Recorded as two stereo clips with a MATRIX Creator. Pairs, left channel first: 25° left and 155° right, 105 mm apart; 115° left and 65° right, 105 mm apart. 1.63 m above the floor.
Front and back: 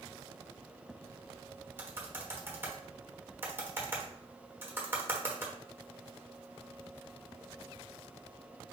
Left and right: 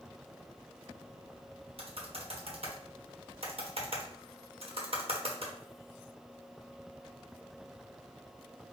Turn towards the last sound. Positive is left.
turn(degrees=-90)